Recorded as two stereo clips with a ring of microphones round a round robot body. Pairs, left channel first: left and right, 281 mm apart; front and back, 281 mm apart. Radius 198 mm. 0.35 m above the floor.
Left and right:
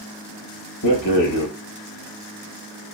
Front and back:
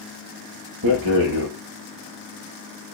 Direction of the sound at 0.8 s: 125° left.